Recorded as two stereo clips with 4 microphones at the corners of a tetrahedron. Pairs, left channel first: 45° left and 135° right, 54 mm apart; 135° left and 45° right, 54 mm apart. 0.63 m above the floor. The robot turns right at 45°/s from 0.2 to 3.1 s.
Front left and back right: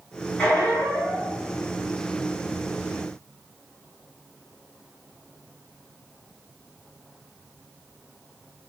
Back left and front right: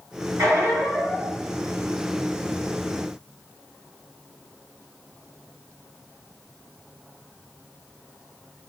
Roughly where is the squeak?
Ahead.